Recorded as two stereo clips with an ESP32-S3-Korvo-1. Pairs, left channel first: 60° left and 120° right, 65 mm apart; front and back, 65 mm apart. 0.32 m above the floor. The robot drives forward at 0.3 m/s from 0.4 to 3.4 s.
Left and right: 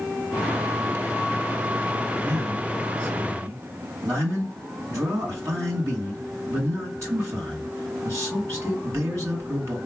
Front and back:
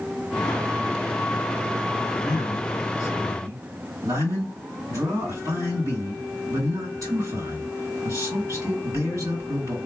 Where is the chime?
No chime in this recording.